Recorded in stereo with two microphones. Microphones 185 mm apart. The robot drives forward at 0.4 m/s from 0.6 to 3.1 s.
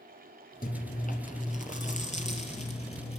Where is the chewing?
50° left (ahead or behind), 2 m; by 3.2 s 35° left (ahead or behind), 3 m.